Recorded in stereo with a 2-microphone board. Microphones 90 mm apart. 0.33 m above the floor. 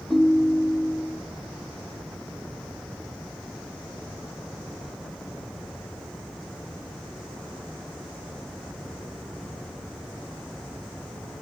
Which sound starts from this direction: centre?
A ringtone, at 0.1 s.